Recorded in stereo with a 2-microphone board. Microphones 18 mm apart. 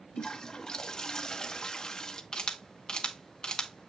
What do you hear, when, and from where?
0.2 s a toilet flushing: 35° left (ahead or behind), 0.8 m
2.3 s a camera shutter: 40° left (ahead or behind), 1.1 m